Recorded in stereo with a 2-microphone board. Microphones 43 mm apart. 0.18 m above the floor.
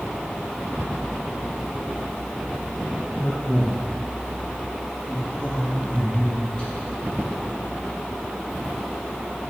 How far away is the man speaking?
About 3 m.